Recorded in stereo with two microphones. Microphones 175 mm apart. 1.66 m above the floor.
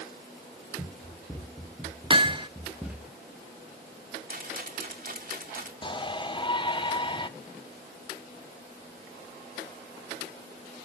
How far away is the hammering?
About 0.7 m.